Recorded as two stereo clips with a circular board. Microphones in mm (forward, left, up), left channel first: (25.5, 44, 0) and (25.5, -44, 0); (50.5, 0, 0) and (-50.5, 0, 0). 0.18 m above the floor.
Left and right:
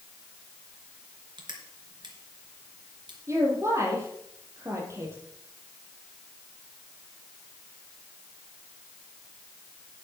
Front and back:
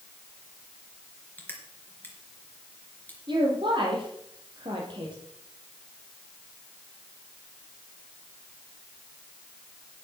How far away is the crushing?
About 3.5 m.